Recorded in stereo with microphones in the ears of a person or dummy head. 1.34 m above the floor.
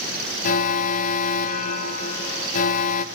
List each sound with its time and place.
0.4 s an alarm: 40° left (ahead or behind), 0.6 m